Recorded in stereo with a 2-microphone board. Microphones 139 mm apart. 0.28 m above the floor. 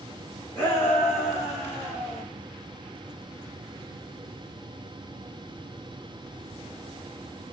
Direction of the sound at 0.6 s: 15° left (ahead or behind).